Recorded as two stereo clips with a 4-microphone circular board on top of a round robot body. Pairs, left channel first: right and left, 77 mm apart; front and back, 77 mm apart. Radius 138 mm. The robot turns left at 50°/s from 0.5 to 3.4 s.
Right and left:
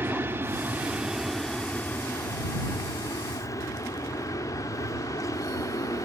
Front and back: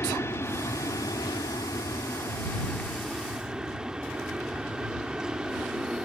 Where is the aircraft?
40° left; by 6.1 s 105° right.